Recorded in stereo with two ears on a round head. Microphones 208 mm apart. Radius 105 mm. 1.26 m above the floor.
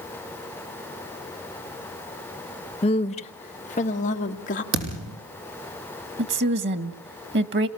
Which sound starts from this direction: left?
A woman speaking, at 2.8 s.